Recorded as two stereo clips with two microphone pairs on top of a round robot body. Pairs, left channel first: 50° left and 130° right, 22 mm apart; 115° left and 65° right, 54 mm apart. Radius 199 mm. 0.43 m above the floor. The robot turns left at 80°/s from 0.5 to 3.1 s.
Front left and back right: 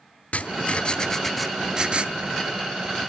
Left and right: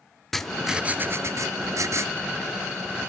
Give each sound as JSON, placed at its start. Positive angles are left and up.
{"t": 0.3, "sound": "writing", "azimuth_deg": 30, "distance_m": 1.1}